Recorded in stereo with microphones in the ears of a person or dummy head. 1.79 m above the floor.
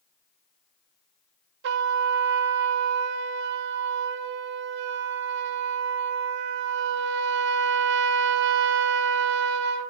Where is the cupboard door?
I don't hear a cupboard door.